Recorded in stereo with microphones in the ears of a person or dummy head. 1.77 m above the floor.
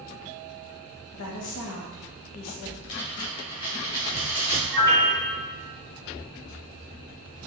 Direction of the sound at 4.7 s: 10° left (ahead or behind).